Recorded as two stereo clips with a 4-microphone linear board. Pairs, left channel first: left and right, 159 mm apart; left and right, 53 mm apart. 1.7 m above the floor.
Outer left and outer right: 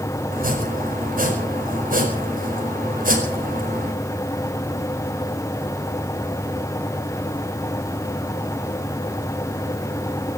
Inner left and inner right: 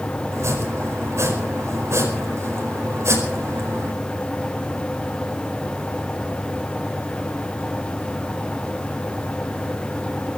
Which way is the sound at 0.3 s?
60° right (ahead or behind).